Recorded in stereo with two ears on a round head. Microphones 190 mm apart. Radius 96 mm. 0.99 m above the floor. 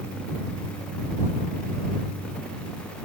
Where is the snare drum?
I don't hear a snare drum.